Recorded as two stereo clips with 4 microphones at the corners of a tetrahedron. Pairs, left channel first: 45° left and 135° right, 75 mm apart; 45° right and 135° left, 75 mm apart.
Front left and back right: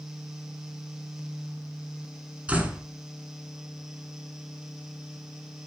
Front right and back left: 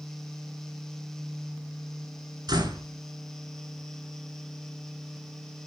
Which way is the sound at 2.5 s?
155° left.